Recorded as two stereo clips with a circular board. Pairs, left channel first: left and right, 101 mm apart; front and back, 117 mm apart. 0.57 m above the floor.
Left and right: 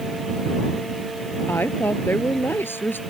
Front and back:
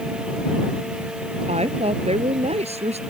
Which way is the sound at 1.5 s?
160° left.